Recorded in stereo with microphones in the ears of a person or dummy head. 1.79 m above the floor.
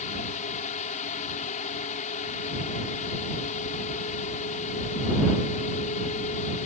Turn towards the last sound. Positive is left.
turn(degrees=45)  # may be behind; listen again after turning